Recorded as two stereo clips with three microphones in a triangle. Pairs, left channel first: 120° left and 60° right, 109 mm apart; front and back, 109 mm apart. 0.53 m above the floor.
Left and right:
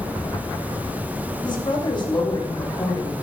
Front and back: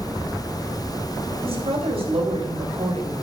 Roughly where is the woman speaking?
Behind.